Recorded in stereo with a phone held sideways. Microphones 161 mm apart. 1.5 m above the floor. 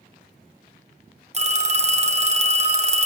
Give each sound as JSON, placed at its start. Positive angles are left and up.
{"t": 1.3, "sound": "a phone ringing", "side_deg": -40, "distance_m": 0.9}